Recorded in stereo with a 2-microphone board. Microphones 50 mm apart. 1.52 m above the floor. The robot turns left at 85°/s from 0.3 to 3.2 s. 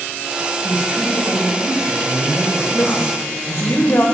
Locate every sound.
0.6 s a woman speaking: 5° left, 1.4 m; by 3.7 s 150° left, 1.4 m
2.7 s a woman speaking: 150° left, 0.9 m; by 4.0 s 110° left, 0.9 m